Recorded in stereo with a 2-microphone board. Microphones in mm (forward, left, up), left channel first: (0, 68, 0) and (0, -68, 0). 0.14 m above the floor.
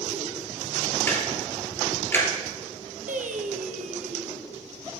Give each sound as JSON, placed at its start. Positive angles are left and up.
{"t": 1.1, "sound": "ticking", "side_deg": 15, "distance_m": 2.0}
{"t": 3.1, "sound": "singing", "side_deg": -75, "distance_m": 1.1}